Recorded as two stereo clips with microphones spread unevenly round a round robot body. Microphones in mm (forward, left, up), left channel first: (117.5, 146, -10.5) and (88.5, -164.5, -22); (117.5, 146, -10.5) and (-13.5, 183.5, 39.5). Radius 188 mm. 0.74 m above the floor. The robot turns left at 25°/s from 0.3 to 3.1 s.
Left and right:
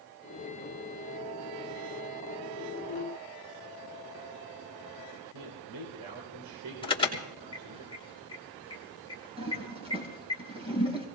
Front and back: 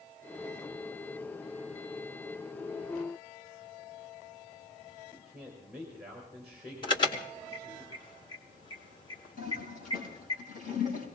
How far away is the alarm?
About 3 m.